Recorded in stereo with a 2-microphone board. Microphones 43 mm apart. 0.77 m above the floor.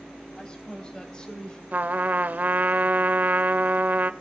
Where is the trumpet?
45° right (ahead or behind), 0.6 m.